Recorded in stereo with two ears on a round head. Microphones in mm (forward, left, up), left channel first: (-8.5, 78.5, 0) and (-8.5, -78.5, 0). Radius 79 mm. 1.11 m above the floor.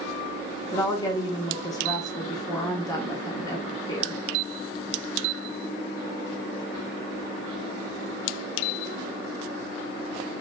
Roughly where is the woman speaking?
Left.